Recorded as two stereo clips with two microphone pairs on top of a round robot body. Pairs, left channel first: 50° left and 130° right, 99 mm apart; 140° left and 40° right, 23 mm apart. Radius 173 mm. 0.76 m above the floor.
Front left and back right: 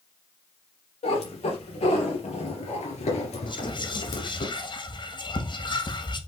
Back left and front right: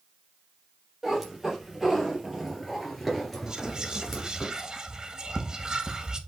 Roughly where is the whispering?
Ahead.